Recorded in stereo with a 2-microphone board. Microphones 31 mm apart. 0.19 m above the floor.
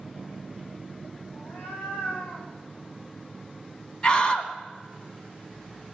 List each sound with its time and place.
1.3 s a cat meowing: 65° left (ahead or behind), 4 m; by 2.5 s 50° left (ahead or behind), 5 m
4.0 s a scream: 30° left (ahead or behind), 1.4 m